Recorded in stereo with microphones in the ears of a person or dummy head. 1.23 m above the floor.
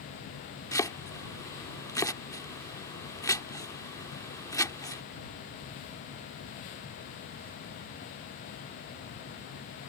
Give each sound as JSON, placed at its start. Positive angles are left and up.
{"t": 0.7, "sound": "chopping", "side_deg": 15}